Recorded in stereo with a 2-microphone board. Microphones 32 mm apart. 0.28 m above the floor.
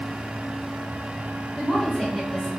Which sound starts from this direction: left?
A woman speaking, at 1.6 s.